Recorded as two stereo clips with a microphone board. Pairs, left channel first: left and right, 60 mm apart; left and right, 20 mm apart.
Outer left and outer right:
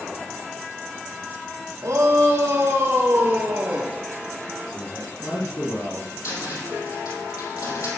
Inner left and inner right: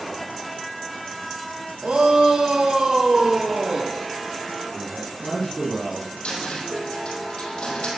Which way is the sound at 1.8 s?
60° right (ahead or behind).